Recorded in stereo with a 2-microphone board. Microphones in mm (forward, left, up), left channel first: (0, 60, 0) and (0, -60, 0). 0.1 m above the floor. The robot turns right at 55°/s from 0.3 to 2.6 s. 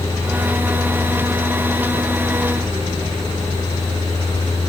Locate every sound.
Only background noise.